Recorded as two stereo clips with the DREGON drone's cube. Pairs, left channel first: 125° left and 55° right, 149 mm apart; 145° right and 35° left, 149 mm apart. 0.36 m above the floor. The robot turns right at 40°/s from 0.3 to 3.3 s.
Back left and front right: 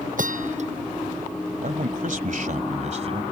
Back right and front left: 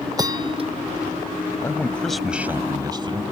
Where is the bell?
30° right; by 0.7 s 15° right.